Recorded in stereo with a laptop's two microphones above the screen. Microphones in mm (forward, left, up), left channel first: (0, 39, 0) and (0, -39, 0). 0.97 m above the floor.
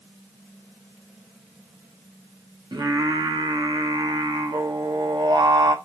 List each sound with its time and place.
2.7 s singing: 70° right (ahead or behind), 0.7 m